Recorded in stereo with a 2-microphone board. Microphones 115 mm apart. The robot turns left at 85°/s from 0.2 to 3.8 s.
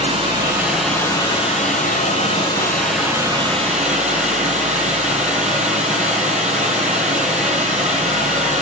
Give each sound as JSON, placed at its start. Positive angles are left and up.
{"t": 0.0, "sound": "running water", "azimuth_deg": -130, "distance_m": 9.5}